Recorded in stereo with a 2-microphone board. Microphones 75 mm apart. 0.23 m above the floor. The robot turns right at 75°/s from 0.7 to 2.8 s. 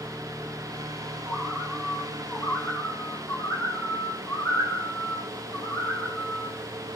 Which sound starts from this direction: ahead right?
A bird, at 1.3 s.